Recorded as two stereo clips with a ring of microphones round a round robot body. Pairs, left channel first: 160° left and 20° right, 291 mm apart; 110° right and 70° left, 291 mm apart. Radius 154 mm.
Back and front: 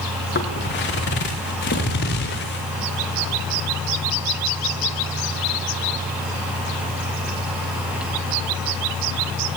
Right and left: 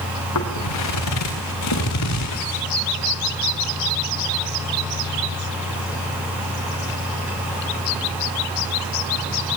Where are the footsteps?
145° right, 4.5 m; by 2.6 s 150° right, 6 m.